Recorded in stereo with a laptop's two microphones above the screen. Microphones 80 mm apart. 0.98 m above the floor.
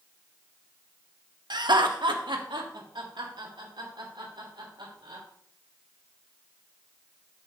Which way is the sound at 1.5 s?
60° right (ahead or behind).